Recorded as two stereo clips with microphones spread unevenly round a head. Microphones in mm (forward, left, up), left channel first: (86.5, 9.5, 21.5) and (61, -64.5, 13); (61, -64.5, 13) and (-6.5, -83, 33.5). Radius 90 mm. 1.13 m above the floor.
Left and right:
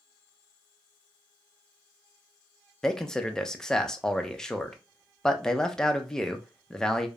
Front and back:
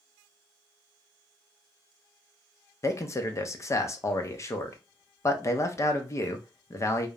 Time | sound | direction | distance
2.8 | a man speaking | 15° right | 0.6 m